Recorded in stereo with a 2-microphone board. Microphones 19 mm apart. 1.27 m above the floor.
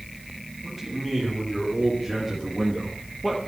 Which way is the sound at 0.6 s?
10° left (ahead or behind).